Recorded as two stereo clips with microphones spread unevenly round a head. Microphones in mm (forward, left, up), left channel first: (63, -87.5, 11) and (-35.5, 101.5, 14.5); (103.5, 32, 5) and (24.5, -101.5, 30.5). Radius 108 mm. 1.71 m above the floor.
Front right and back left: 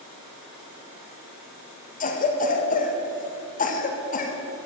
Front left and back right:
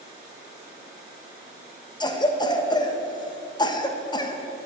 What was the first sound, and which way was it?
A cough, 10° right.